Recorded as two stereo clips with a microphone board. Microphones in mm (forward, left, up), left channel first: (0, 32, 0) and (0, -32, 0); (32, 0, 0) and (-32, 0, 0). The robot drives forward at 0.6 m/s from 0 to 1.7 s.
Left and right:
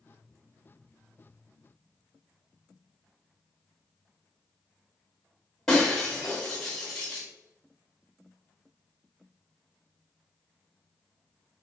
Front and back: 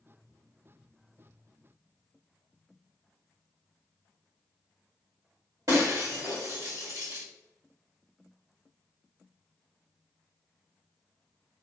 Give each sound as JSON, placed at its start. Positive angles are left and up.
{"t": 5.7, "sound": "breaking glass", "azimuth_deg": 170, "distance_m": 1.8}